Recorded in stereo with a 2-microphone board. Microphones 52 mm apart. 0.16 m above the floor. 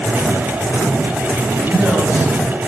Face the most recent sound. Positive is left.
turn(degrees=-35)  # may be behind; listen again after turning